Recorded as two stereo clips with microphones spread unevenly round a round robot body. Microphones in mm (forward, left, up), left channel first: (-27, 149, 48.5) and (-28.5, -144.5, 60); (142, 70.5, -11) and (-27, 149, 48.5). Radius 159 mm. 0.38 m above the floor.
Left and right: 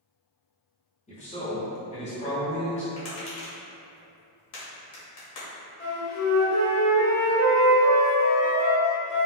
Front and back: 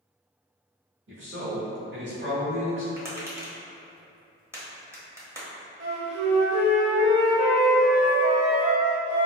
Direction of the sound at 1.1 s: 145° left.